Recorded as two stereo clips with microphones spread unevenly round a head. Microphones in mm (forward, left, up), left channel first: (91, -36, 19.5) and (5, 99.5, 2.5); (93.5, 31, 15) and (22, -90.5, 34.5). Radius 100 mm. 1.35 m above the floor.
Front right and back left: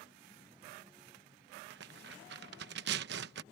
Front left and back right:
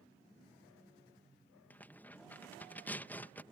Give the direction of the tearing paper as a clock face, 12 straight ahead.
7 o'clock.